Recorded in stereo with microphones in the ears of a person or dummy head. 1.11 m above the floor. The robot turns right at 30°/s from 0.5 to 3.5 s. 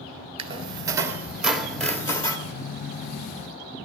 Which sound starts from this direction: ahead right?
A squeak, at 0.4 s.